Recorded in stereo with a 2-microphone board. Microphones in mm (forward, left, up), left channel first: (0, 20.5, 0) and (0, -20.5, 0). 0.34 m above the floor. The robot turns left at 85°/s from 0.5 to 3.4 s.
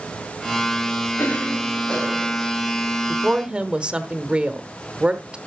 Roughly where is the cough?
Left.